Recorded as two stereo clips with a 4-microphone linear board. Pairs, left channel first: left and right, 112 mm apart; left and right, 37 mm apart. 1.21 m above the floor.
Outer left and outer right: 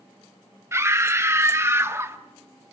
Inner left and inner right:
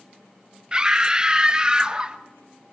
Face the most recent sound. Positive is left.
turn(degrees=-25)  # may be behind; listen again after turning